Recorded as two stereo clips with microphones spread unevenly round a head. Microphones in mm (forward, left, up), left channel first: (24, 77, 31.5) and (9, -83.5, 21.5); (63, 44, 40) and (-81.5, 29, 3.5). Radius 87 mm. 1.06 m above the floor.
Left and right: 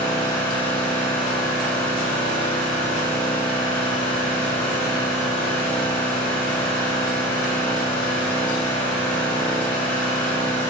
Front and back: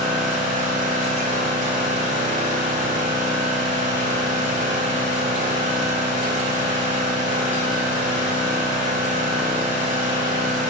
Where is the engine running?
160° left, 0.9 m.